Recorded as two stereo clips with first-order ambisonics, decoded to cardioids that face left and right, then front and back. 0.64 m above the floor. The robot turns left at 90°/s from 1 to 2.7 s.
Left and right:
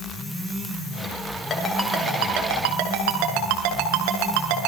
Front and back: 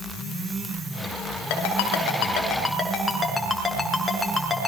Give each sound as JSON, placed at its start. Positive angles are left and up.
{"t": 1.5, "sound": "a ringtone", "azimuth_deg": 20, "distance_m": 6.5}